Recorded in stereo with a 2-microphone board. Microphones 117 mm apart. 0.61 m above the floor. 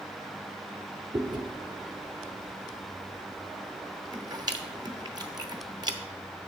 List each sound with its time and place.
1.1 s chewing: 35° right (ahead or behind), 0.8 m